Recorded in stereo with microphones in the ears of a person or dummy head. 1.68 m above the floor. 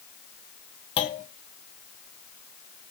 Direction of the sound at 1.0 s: 30° left (ahead or behind).